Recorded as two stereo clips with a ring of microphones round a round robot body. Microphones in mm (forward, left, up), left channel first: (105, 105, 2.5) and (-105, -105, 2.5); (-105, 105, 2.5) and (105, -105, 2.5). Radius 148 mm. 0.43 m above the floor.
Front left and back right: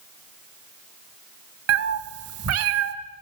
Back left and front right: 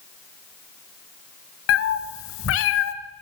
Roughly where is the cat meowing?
Behind.